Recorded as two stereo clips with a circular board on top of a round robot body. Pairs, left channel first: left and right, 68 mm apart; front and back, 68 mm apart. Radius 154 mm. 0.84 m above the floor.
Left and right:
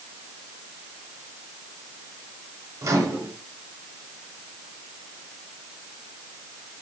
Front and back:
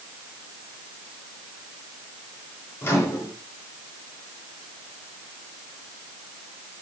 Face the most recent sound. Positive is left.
turn(degrees=-55)